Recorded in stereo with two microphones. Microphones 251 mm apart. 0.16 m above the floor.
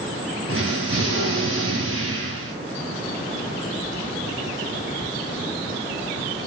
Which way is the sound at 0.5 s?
55° right (ahead or behind).